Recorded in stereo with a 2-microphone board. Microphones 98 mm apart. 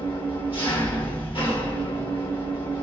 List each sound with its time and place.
0.0 s an engine running: 70° left (ahead or behind), 1.5 m